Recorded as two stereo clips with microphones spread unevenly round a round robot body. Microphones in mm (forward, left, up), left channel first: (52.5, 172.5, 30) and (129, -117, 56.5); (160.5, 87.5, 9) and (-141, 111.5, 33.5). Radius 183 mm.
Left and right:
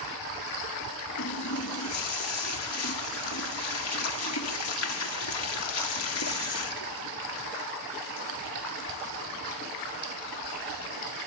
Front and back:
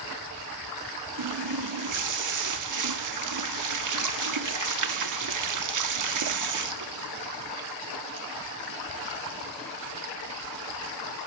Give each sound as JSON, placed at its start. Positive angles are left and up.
{"t": 1.2, "sound": "a running tap", "azimuth_deg": 150, "distance_m": 1.3}